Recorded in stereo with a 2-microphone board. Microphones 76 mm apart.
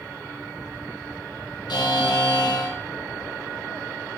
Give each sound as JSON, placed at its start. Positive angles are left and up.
{"t": 1.7, "sound": "a buzzer", "side_deg": 65, "distance_m": 1.3}